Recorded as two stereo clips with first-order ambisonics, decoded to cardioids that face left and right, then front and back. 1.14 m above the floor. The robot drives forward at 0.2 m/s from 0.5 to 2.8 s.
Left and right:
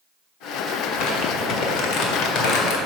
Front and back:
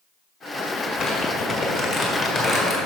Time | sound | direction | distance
0.8 | crumpling | 70° left | 1.6 m